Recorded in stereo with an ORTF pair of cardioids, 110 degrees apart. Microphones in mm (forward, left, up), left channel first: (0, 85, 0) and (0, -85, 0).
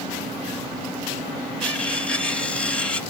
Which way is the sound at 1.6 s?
5° left.